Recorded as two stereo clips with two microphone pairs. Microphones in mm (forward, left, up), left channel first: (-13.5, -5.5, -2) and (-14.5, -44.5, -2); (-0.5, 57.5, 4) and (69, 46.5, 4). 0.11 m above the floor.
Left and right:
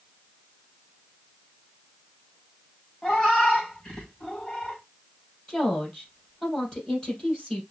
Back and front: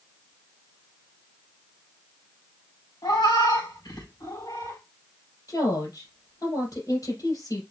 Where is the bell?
No bell in this recording.